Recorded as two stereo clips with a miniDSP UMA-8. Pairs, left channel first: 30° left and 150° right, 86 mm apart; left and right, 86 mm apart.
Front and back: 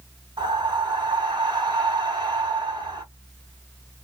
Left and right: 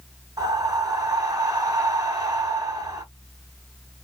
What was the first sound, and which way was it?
Breathing, 130° right.